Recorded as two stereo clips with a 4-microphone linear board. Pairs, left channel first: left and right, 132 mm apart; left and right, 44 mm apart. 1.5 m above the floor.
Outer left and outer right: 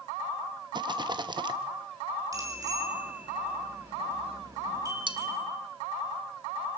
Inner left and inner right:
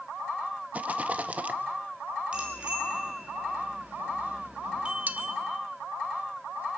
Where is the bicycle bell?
25° right (ahead or behind), 5 m.